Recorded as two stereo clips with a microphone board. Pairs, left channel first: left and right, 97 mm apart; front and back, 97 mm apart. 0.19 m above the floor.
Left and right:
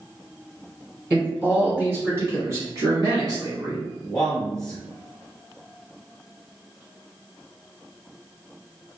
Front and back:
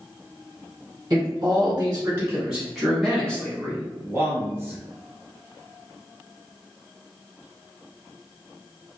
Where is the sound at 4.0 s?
160° left, 1.1 m.